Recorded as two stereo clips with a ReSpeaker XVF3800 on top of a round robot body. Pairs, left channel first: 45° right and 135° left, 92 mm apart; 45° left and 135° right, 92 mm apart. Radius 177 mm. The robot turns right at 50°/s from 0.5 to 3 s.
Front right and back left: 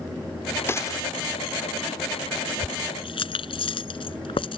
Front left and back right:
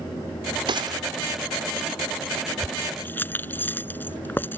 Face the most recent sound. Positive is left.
turn(degrees=-25)